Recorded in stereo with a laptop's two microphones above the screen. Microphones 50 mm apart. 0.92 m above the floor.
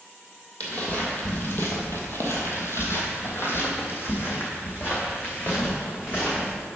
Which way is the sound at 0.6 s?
30° left (ahead or behind).